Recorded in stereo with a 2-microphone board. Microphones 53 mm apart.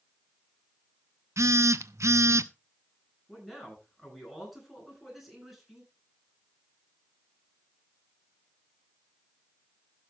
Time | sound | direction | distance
1.4 | a phone buzzing | 75° right (ahead or behind) | 0.7 m
3.3 | a man speaking | centre (ahead or behind) | 9.5 m